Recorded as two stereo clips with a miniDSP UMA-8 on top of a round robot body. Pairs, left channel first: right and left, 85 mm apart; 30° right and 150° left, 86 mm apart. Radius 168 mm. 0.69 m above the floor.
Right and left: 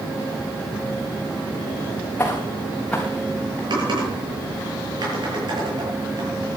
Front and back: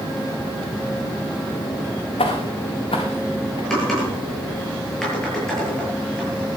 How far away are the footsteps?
About 4 m.